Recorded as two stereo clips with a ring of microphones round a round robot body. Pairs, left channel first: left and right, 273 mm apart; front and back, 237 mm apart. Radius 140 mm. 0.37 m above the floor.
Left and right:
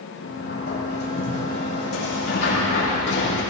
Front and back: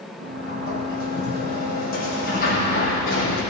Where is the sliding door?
35° left, 6.5 m.